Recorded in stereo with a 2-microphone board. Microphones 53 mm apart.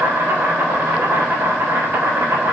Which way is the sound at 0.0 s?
55° right (ahead or behind).